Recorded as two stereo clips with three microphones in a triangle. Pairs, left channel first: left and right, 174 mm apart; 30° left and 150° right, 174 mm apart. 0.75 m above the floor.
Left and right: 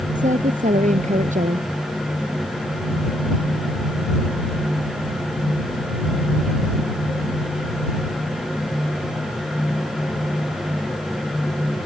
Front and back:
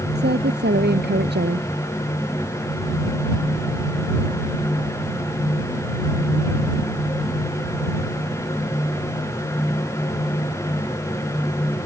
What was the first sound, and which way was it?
A woman speaking, 135° right.